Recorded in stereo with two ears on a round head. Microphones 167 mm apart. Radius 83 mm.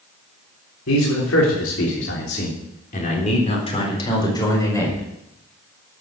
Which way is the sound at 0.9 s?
90° left.